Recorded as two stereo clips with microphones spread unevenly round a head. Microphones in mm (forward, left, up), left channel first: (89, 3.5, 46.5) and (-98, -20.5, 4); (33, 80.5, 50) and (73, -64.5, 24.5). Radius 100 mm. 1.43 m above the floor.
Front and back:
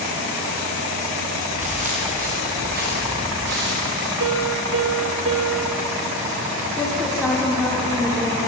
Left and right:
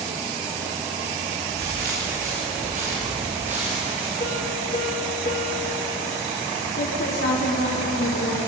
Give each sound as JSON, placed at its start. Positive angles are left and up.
{"t": 1.5, "sound": "footsteps", "azimuth_deg": -115, "distance_m": 7.5}
{"t": 4.2, "sound": "a piano", "azimuth_deg": 165, "distance_m": 1.7}
{"t": 6.8, "sound": "a woman speaking", "azimuth_deg": 95, "distance_m": 4.5}